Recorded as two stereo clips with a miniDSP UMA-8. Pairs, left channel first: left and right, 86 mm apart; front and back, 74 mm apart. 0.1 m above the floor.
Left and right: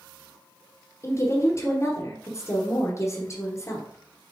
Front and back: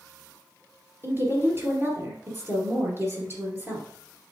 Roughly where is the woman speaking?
Behind left.